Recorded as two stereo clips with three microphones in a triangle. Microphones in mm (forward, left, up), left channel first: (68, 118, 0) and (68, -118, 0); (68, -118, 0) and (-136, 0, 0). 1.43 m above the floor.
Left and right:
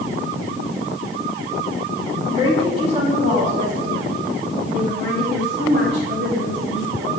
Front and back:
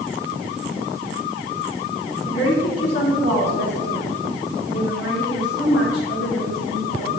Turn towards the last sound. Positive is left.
turn(degrees=-55)